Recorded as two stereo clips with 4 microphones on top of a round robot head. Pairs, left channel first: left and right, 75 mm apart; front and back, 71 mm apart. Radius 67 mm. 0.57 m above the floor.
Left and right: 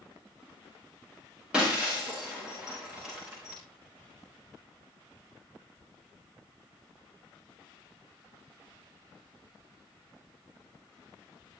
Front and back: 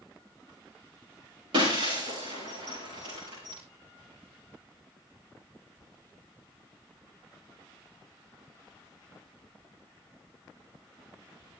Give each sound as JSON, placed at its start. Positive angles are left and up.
{"t": 1.5, "sound": "breaking glass", "azimuth_deg": -170, "distance_m": 10.0}